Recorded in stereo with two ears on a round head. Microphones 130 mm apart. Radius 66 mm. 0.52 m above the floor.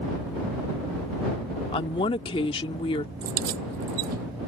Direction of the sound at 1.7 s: 35° left (ahead or behind).